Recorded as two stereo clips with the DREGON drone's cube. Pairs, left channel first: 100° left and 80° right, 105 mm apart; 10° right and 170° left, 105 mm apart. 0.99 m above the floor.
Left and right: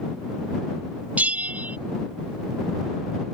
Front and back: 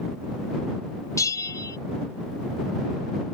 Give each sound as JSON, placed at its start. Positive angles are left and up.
{"t": 1.2, "sound": "a bell", "azimuth_deg": -15}